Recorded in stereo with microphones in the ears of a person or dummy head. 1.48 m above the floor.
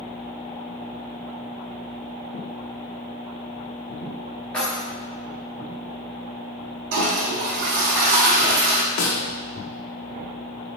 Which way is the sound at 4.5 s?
5° left (ahead or behind).